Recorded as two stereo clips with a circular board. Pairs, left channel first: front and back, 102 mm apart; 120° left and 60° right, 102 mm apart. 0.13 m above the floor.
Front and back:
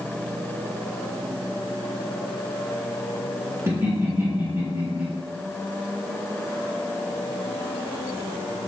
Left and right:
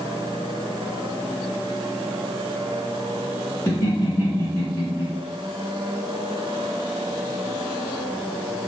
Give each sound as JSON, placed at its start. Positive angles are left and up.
{"t": 3.7, "sound": "laughter", "azimuth_deg": 150, "distance_m": 1.6}